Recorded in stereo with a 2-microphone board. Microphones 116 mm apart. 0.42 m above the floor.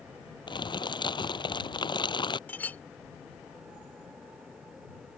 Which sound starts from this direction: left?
Crumpling, at 0.5 s.